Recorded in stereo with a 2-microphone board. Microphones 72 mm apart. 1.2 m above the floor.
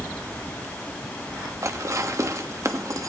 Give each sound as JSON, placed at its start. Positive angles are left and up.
{"t": 1.6, "sound": "dishes clattering", "side_deg": -45, "distance_m": 1.0}